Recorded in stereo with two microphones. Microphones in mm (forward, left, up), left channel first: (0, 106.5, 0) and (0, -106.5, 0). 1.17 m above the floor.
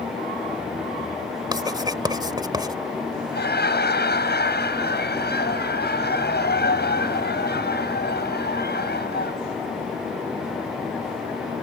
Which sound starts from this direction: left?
Laughter, at 3.3 s.